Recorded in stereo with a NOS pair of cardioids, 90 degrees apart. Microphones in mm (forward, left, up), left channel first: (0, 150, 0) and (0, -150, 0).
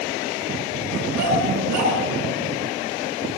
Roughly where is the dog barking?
Ahead right.